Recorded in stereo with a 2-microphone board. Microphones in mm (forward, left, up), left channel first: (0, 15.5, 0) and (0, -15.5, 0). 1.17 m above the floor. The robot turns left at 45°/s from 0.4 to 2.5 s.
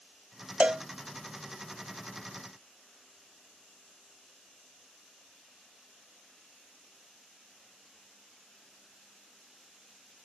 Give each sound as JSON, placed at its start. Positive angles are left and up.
{"t": 0.6, "sound": "a cowbell", "side_deg": -35}